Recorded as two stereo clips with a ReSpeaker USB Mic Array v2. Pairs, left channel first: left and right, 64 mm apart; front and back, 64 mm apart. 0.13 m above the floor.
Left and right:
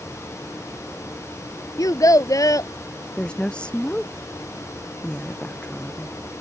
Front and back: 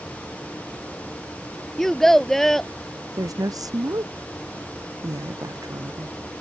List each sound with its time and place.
1.8 s a child speaking: 80° left
3.2 s a woman speaking: 165° left